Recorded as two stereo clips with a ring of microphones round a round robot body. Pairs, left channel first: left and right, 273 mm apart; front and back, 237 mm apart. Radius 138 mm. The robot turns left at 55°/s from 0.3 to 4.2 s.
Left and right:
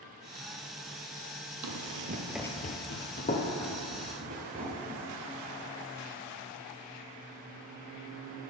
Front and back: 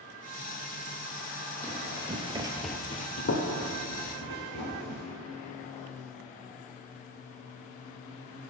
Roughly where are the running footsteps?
Right.